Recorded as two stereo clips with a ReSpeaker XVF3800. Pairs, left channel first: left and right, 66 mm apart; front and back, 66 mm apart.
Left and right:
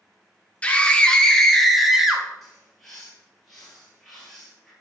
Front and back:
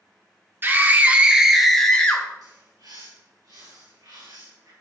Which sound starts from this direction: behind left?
A scream, at 0.6 s.